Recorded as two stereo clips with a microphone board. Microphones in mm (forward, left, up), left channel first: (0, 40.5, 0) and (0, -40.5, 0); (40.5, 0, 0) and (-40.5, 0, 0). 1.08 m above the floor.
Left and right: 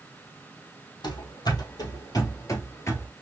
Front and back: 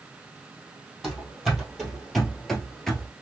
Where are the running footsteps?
90° left, 2 m; by 3.1 s 75° left, 1.1 m.